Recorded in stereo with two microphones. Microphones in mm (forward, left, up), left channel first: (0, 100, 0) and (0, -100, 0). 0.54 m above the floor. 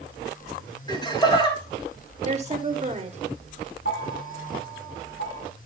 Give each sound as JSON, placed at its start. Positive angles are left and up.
{"t": 0.9, "sound": "laughter", "side_deg": 20, "distance_m": 3.5}
{"t": 2.2, "sound": "a woman speaking", "side_deg": -30, "distance_m": 1.2}
{"t": 3.9, "sound": "a bell", "side_deg": 65, "distance_m": 2.5}